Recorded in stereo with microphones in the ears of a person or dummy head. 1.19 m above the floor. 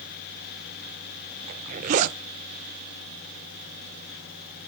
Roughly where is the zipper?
Right.